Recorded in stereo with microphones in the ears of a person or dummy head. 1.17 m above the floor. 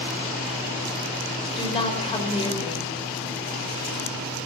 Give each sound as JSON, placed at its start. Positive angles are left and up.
{"t": 1.6, "sound": "a woman speaking", "side_deg": 30, "distance_m": 5.0}